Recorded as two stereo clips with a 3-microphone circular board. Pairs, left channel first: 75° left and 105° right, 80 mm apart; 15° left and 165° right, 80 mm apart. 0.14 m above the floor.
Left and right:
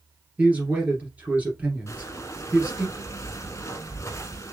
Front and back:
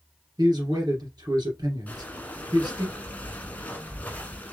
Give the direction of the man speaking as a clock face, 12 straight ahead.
6 o'clock.